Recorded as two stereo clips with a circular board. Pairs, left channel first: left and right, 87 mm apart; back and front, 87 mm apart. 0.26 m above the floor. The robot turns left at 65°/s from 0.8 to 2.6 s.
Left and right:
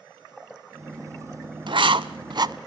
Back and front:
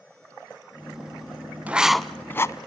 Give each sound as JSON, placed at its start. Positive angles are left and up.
{"t": 1.7, "sound": "writing", "azimuth_deg": -70, "distance_m": 0.7}